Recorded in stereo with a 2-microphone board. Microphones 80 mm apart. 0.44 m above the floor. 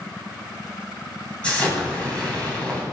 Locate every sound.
1.4 s an explosion: 15° left (ahead or behind), 3 m